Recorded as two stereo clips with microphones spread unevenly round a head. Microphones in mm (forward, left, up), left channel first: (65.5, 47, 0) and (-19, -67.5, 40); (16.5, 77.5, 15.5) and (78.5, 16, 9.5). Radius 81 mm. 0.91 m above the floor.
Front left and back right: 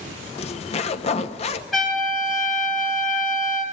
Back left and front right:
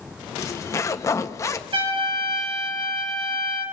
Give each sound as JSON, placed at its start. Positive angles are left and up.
{"t": 0.4, "sound": "a zipper", "azimuth_deg": 80, "distance_m": 1.0}
{"t": 1.7, "sound": "a trumpet", "azimuth_deg": -35, "distance_m": 7.0}